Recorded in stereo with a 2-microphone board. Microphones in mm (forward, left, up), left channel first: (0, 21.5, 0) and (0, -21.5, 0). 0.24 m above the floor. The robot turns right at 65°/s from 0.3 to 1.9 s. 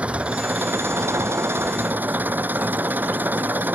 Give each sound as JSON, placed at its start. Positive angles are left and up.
{"t": 0.0, "sound": "an engine running", "azimuth_deg": -150}